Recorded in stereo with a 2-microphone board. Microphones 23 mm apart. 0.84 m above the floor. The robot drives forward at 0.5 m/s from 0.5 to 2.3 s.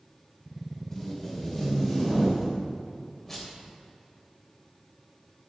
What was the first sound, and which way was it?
Tape being pulled, 15° left (ahead or behind).